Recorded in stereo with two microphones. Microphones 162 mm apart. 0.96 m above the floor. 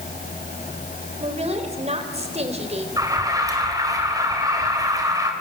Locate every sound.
1.2 s a woman speaking: 40° right (ahead or behind), 3.5 m
3.0 s an alarm: 20° right (ahead or behind), 3.5 m